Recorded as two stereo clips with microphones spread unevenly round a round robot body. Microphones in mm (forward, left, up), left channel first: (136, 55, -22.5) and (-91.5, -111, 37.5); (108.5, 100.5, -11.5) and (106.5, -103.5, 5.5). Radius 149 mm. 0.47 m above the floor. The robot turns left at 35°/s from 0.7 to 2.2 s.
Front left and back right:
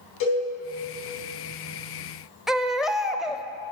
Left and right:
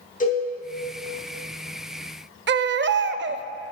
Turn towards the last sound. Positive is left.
turn(degrees=-50)